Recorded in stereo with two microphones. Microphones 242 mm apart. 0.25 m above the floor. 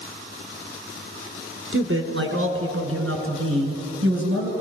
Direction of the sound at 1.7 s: 60° right (ahead or behind).